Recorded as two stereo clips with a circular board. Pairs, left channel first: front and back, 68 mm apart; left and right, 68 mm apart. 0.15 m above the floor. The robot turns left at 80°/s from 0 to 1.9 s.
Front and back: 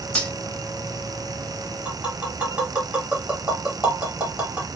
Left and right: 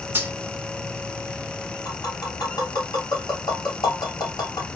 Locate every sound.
0.1 s cutlery clinking: 60° right, 0.8 m; by 0.3 s 75° right, 0.8 m
1.9 s tapping: 105° left, 1.8 m